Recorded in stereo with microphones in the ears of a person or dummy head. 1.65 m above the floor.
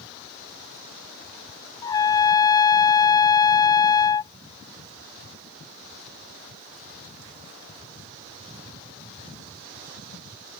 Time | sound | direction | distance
1.8 | a trumpet | 20° left (ahead or behind) | ?